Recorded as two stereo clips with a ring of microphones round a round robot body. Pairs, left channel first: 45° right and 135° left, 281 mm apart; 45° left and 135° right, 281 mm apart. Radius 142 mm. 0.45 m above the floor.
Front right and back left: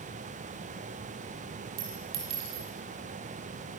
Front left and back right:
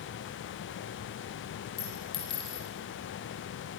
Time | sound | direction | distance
1.8 | a clink | 120° left | 7.5 m